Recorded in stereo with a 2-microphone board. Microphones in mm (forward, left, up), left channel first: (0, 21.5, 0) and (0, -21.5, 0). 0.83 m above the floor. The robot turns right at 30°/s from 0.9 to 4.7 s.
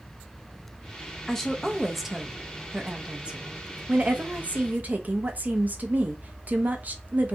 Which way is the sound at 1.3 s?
160° left.